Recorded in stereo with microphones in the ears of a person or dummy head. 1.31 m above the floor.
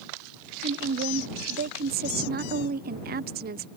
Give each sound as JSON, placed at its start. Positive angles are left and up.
{"t": 0.6, "sound": "a woman speaking", "side_deg": -45}